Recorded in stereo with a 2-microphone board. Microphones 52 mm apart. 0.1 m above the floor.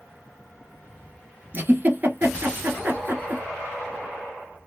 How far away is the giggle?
About 0.8 m.